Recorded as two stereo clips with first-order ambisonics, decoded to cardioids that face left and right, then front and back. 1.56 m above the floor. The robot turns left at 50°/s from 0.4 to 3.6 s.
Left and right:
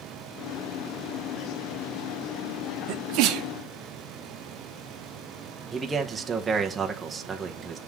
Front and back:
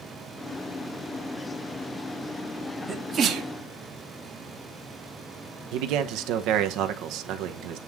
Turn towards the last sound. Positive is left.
turn(degrees=-165)